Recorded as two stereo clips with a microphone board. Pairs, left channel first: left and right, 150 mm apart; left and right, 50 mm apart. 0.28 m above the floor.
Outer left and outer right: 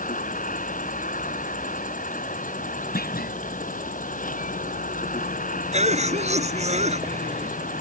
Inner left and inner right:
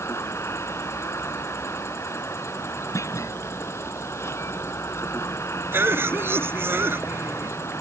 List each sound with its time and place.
0.0 s an insect: 60° left (ahead or behind)
3.0 s a clunk: 80° left
5.7 s a cough: 50° right (ahead or behind)